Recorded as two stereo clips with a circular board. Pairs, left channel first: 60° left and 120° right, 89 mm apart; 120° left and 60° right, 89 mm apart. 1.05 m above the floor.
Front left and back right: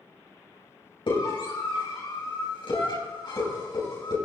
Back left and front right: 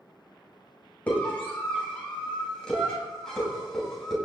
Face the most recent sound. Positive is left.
turn(degrees=35)